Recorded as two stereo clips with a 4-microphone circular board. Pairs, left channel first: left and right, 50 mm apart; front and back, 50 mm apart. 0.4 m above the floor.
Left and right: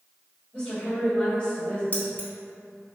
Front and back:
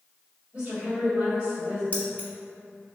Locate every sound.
0.5 s a woman speaking: 140° left, 1.8 m
1.9 s keys jangling: 45° left, 1.0 m